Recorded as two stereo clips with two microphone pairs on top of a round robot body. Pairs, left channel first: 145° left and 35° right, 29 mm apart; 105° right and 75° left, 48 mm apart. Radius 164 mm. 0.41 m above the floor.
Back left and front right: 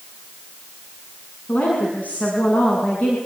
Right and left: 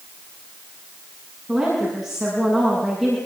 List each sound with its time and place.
1.5 s a woman speaking: 165° left, 7.5 m; by 3.2 s 170° left, 7 m